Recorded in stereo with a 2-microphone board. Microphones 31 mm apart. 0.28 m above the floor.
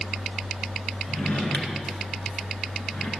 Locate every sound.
1.1 s a drawer: 55° left (ahead or behind), 1.8 m